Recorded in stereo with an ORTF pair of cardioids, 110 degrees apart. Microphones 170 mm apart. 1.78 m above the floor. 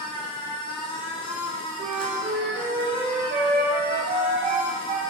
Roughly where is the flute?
Ahead right.